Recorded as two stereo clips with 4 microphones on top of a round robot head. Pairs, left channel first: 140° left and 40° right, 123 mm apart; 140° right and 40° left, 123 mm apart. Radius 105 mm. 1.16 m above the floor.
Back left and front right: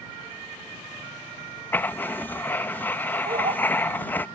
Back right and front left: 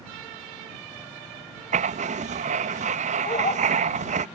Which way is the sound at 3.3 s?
90° right.